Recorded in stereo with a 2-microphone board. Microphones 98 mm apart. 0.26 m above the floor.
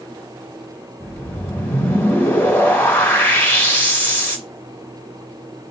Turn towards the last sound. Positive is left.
turn(degrees=20)  # may be behind; listen again after turning